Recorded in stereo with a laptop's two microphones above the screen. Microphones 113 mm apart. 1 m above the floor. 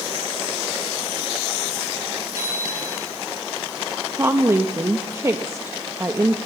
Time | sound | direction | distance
2.4 | a bicycle bell | 30° right (ahead or behind) | 7 m
4.1 | a woman speaking | 25° right (ahead or behind) | 0.9 m